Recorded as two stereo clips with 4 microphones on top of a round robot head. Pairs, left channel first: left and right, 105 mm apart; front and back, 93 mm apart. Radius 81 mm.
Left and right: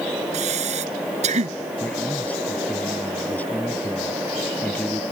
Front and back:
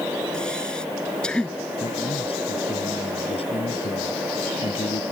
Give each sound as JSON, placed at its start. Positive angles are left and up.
{"t": 0.3, "sound": "breathing", "azimuth_deg": -80}
{"t": 1.8, "sound": "a man speaking", "azimuth_deg": 15}